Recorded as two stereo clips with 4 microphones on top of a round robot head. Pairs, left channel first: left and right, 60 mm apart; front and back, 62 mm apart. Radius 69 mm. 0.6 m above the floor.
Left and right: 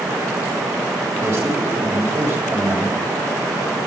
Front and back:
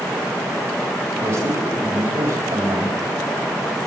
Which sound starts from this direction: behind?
A man speaking, at 1.2 s.